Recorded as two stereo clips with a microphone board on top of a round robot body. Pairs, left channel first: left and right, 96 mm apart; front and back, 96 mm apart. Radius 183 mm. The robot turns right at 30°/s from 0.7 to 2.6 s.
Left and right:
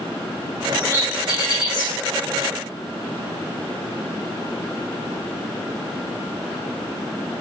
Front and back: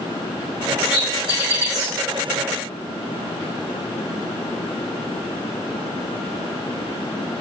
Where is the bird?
25° left, 3 m; by 1.9 s 60° left, 3 m.